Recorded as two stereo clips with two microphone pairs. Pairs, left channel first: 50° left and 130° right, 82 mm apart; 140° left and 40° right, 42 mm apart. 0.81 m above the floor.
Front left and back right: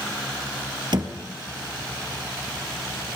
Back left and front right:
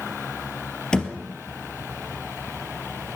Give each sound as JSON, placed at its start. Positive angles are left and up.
{"t": 0.9, "sound": "a thud", "azimuth_deg": -150, "distance_m": 2.5}